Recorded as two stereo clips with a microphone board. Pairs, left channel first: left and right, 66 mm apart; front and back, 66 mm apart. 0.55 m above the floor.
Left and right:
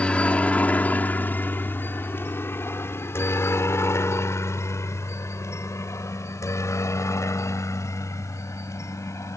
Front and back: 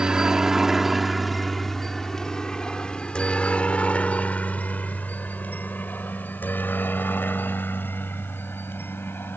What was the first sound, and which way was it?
A helicopter, 125° left.